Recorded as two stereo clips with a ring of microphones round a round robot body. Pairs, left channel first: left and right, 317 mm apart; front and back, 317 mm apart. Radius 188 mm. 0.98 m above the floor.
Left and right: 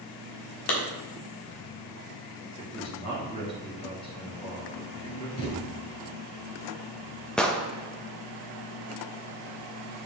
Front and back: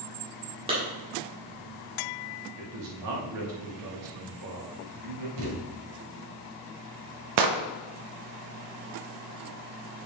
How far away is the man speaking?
About 2.5 m.